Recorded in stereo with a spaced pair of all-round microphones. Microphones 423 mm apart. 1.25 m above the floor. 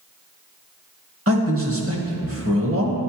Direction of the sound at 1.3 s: 35° right (ahead or behind).